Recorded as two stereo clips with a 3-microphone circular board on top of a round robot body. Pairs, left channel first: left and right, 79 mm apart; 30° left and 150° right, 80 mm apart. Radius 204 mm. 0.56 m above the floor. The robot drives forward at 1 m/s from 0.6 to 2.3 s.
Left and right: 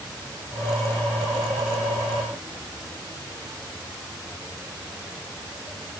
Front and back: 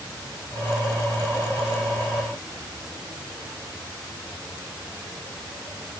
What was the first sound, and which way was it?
Only background noise.